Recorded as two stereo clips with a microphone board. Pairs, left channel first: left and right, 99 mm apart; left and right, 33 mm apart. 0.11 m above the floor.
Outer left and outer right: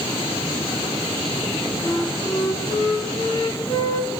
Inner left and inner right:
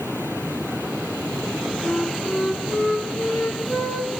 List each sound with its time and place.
1.8 s a flute: 40° left (ahead or behind), 5.5 m